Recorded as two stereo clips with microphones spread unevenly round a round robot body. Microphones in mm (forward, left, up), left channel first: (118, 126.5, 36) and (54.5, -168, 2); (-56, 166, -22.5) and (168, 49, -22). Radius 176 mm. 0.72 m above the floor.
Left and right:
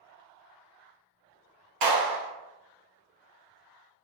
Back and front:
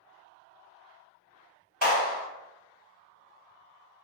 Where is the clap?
115° right, 1.7 m.